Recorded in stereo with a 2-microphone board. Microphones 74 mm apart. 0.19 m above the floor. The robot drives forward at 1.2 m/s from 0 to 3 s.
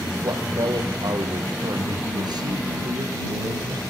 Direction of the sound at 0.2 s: 70° right (ahead or behind).